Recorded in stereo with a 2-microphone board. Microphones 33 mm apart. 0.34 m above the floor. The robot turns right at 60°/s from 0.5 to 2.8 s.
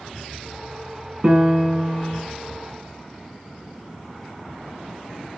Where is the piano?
40° right, 1.4 m; by 2.2 s 20° left, 1.4 m.